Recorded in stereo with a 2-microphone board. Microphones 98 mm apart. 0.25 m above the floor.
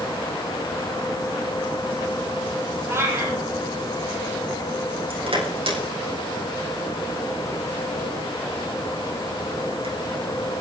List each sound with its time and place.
2.9 s a cat meowing: 25° right (ahead or behind), 3.5 m
5.1 s crushing: 75° right (ahead or behind), 7.5 m